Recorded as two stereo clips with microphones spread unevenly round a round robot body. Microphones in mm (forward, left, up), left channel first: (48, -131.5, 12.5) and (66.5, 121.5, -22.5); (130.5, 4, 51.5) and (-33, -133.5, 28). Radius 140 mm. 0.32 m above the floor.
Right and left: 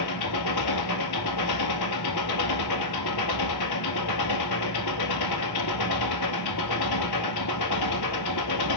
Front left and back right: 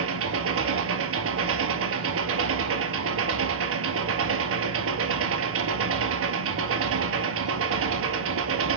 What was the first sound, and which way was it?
An engine running, 120° right.